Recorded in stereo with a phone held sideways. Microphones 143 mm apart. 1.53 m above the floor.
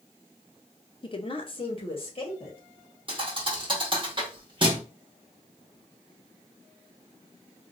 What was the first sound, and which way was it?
A woman speaking, 35° left (ahead or behind).